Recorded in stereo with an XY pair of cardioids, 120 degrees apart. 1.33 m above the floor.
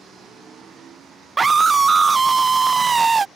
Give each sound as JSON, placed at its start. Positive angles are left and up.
{"t": 1.4, "sound": "a scream", "azimuth_deg": -25}